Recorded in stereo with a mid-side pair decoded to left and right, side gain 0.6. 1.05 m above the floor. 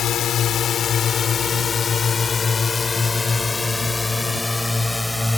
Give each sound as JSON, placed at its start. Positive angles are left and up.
{"t": 0.0, "sound": "a drone", "azimuth_deg": 55}